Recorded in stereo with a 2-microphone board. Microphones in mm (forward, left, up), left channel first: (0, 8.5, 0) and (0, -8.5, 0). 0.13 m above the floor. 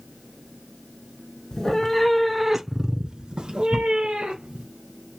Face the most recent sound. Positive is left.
turn(degrees=-65)  # may be behind; listen again after turning